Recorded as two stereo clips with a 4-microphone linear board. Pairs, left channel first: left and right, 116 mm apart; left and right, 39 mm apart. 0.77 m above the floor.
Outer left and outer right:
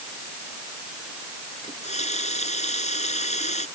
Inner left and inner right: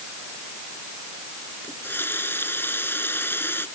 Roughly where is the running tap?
Left.